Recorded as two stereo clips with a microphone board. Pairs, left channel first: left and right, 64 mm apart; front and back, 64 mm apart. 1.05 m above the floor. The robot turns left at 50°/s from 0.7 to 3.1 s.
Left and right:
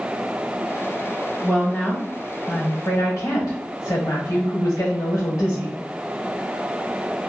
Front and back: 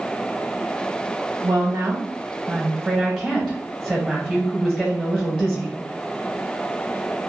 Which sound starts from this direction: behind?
A woman speaking, at 1.4 s.